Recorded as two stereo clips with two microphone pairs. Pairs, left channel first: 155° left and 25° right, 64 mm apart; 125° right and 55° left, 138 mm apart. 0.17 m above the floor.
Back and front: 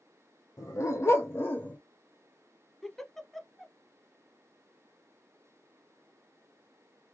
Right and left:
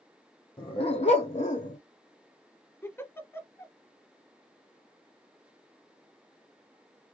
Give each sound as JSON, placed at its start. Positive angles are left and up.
{"t": 0.6, "sound": "a dog barking", "azimuth_deg": -175, "distance_m": 1.3}
{"t": 2.8, "sound": "a giggle", "azimuth_deg": -130, "distance_m": 0.6}